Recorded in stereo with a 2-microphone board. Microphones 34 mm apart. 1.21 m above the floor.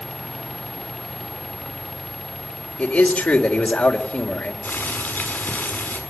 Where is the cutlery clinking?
I don't hear cutlery clinking.